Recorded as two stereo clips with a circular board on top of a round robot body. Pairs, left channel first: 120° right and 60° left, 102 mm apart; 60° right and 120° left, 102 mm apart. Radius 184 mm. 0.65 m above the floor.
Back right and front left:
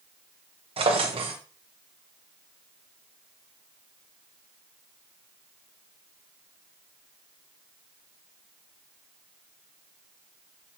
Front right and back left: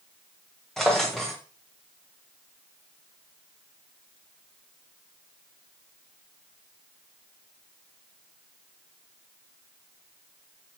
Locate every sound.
0.8 s a drawer: 30° left, 0.7 m